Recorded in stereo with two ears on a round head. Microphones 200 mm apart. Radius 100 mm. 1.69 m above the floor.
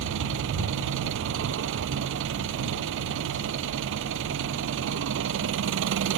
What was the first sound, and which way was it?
An engine running, 60° right (ahead or behind).